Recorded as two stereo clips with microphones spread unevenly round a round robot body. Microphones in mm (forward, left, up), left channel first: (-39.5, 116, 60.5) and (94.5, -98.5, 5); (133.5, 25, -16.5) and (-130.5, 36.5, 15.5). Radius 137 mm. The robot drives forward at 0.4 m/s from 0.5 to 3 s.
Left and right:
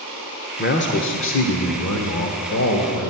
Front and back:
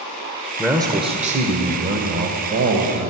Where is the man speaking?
90° left, 0.9 m; by 3.1 s 155° left, 1.3 m.